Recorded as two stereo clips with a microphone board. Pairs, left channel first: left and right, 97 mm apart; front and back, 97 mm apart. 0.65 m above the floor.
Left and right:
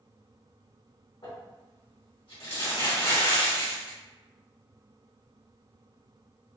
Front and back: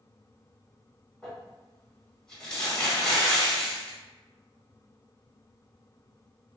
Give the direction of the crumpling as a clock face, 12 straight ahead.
9 o'clock.